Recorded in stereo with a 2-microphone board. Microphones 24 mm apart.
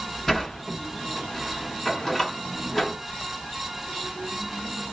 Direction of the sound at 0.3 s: 15° left (ahead or behind).